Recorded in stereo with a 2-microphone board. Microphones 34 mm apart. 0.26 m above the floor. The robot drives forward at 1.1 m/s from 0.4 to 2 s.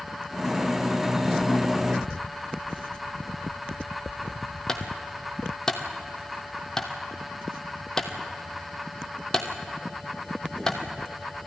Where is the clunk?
15° left (ahead or behind), 1.5 m.